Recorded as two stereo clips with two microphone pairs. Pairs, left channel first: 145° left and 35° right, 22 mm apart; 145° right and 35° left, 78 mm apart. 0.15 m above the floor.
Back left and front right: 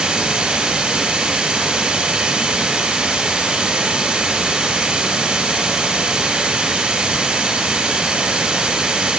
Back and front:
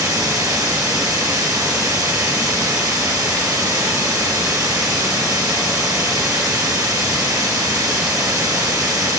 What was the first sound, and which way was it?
Running water, 5° left.